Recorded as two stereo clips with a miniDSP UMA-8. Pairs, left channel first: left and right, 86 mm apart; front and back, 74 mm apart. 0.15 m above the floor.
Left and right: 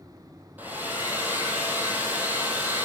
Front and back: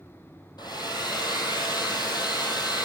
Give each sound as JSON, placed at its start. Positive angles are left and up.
{"t": 0.6, "sound": "a hair dryer", "azimuth_deg": -20, "distance_m": 1.8}